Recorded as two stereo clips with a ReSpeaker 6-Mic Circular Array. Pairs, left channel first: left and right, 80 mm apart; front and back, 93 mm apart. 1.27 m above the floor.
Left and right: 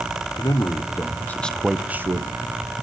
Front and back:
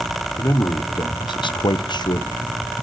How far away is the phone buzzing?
I don't hear a phone buzzing.